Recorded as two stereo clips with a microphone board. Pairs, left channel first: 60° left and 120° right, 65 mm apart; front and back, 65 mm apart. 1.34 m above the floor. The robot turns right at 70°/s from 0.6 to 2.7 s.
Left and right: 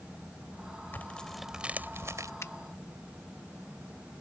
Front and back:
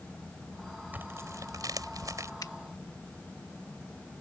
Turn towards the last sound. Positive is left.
turn(degrees=35)